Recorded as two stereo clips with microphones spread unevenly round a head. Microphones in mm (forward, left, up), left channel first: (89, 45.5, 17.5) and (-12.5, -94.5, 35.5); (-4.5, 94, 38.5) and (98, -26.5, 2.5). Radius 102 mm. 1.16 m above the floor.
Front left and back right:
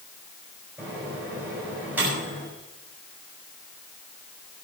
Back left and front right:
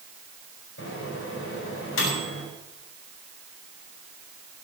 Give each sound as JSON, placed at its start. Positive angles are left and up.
{"t": 0.8, "sound": "a microwave", "azimuth_deg": 150, "distance_m": 6.5}